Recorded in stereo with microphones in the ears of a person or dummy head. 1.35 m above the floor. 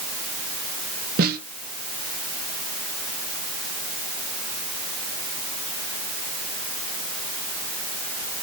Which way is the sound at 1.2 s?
50° right (ahead or behind).